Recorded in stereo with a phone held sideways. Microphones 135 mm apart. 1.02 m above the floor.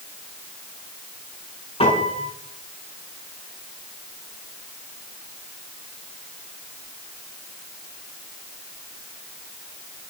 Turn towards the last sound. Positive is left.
turn(degrees=50)  # may be behind; listen again after turning